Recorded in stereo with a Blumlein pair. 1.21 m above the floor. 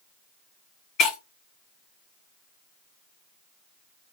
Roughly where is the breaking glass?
Ahead left.